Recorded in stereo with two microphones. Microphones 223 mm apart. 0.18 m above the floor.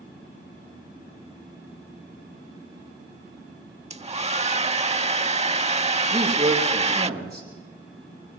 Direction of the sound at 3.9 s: 30° right (ahead or behind).